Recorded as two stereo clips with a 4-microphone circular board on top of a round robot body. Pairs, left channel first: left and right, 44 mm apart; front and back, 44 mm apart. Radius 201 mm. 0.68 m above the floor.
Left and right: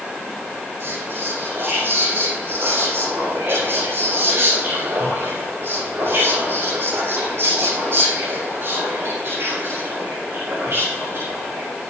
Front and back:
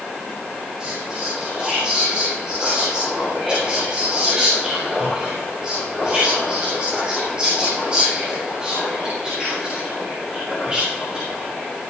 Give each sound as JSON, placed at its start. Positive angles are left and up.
{"t": 0.8, "sound": "whispering", "azimuth_deg": -110, "distance_m": 6.0}